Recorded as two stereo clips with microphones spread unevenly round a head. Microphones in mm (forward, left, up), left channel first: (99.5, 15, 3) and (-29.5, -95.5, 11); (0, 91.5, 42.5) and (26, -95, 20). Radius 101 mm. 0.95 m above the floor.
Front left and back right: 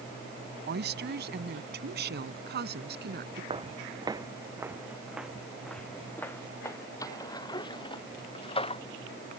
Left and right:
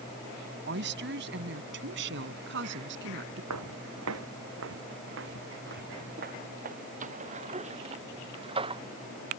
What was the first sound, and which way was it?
A woman speaking, 120° right.